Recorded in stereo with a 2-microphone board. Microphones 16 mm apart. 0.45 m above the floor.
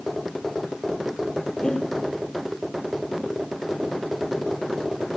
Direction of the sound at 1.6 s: 50° left (ahead or behind).